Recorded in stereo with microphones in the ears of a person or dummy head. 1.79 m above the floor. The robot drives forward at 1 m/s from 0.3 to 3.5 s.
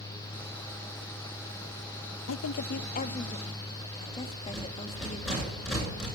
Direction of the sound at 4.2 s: 5° right (ahead or behind).